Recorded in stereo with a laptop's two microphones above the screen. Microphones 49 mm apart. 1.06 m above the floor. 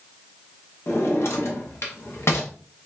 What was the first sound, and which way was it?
A drawer, 60° left (ahead or behind).